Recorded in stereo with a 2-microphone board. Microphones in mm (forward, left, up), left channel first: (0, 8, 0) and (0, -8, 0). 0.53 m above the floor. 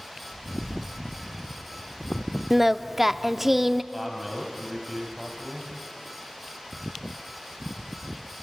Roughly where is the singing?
Centre.